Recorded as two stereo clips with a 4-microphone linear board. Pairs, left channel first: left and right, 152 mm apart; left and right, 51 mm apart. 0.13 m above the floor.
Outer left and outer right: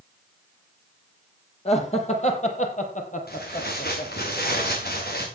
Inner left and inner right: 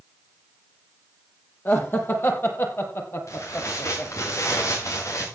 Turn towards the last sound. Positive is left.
turn(degrees=85)